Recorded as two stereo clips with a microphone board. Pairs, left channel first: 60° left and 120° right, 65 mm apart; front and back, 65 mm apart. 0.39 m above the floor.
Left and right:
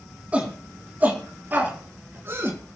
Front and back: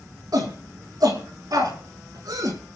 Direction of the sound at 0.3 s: 170° left.